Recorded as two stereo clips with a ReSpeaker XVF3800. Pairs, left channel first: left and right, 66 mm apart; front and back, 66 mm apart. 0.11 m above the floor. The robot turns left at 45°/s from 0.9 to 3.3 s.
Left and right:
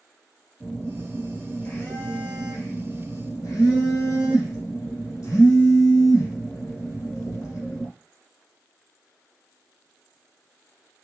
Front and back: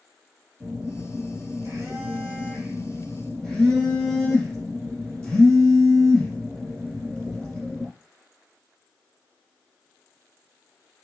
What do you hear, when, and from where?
0.6 s a phone buzzing: straight behind, 2 m; by 7.9 s 70° left, 2 m